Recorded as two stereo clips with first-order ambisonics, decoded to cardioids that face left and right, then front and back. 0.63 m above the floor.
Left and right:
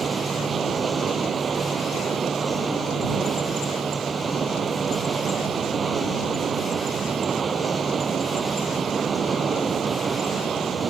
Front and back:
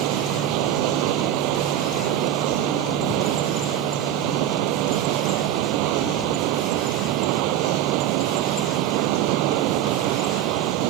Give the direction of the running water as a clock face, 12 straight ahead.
5 o'clock.